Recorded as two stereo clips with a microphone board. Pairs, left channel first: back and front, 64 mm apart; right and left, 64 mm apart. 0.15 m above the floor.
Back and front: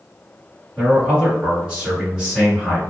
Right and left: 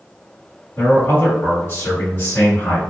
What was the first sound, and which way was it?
A man speaking, 65° right.